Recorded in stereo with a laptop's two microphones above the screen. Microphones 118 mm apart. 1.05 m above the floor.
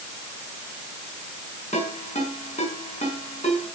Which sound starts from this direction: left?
A ringtone, at 1.7 s.